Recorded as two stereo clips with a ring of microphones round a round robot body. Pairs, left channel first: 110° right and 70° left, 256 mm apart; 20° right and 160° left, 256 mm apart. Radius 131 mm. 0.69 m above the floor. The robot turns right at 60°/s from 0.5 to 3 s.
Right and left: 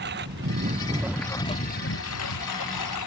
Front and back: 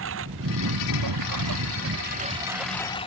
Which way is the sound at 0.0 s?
120° left.